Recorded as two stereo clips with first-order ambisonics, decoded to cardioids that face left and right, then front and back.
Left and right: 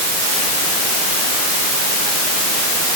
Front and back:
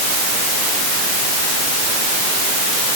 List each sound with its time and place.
Only background noise.